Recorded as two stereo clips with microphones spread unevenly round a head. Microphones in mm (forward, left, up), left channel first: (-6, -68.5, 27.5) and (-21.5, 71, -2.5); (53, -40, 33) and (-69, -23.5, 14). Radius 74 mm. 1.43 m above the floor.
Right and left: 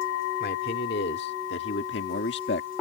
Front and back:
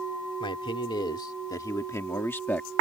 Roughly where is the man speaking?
Ahead right.